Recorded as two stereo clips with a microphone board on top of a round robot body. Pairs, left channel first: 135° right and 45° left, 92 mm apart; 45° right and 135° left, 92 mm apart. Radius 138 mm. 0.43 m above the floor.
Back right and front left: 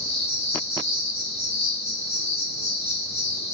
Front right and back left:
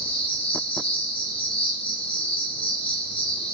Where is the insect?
75° right, 0.8 m.